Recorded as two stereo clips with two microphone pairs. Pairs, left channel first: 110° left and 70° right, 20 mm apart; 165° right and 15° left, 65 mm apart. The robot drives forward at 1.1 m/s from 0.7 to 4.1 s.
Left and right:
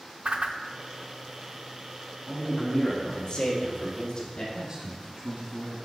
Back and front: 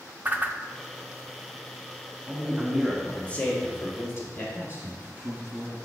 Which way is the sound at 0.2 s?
45° right.